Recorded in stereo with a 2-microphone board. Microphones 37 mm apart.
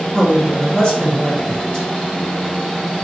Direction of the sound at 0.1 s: 25° left (ahead or behind).